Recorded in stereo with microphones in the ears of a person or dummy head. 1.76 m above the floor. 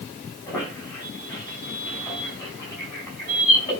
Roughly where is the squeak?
Centre.